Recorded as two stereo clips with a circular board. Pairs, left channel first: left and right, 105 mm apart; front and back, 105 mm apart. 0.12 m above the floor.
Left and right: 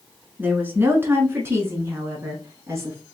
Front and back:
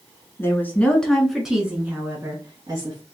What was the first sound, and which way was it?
A woman speaking, 40° right.